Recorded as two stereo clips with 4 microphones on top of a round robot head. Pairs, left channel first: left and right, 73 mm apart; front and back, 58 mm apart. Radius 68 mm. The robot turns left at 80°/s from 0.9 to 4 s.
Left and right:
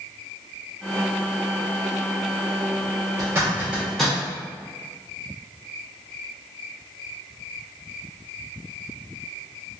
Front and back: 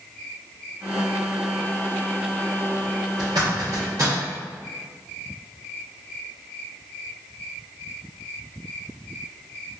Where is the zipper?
120° right, 0.9 m; by 4.2 s 175° left, 0.9 m.